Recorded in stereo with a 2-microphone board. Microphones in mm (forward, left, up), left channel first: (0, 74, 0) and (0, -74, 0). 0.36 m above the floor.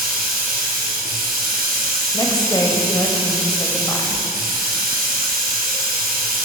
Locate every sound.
0.0 s running water: 80° right, 1.7 m
2.1 s a woman speaking: 25° left (ahead or behind), 1.2 m